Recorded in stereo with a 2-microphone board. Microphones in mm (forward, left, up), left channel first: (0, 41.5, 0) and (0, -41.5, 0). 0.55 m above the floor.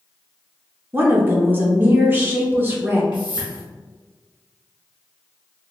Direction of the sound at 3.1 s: 70° left (ahead or behind).